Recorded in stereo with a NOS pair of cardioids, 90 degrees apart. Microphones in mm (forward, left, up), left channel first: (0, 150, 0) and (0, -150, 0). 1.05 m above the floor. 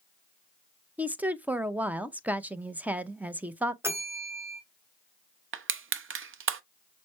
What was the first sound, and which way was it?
A woman speaking, 5° right.